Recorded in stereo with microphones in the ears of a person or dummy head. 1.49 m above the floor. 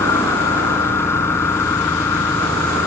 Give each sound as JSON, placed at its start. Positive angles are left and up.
{"t": 0.0, "sound": "an engine running", "side_deg": 15}